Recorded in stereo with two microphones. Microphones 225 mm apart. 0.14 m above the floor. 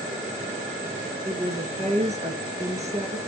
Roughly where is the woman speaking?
Right.